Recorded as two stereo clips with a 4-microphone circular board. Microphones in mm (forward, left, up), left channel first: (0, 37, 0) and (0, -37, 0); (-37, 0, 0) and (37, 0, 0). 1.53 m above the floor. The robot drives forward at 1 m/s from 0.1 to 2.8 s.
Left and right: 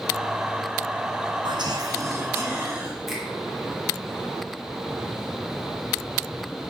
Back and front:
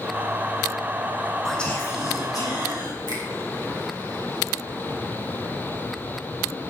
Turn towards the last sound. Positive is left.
turn(degrees=180)